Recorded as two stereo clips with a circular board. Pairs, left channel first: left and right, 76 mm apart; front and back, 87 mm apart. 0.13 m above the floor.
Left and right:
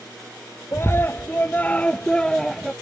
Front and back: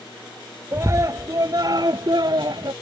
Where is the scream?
135° left; by 2.7 s 175° left.